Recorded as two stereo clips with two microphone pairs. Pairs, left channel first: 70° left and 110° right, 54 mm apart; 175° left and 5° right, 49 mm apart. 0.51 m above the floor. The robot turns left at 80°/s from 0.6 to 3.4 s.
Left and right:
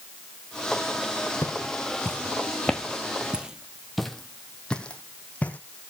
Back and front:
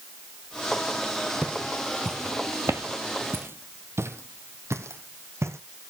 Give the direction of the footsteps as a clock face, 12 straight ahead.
10 o'clock.